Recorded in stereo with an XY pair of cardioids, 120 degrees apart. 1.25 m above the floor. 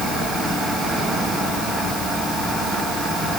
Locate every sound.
Only background noise.